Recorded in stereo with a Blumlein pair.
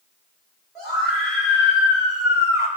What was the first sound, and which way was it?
A scream, 10° right.